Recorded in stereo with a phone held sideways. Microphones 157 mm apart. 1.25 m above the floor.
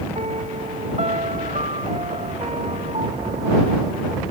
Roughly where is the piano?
Right.